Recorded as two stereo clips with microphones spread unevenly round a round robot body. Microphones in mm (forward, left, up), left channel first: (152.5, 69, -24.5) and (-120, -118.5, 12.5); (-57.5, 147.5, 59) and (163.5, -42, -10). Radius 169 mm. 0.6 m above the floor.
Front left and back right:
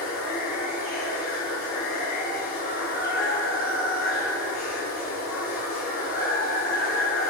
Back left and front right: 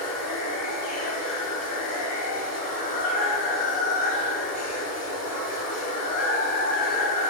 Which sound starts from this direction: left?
Running water, at 0.0 s.